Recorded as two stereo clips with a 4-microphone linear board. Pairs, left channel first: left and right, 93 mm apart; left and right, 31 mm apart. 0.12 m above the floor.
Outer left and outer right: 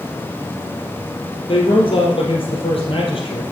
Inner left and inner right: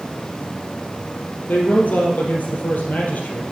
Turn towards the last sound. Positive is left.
turn(degrees=65)  # may be behind; listen again after turning